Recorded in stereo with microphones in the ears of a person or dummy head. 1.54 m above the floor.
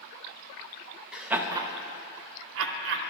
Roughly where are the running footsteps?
No running footsteps in this recording.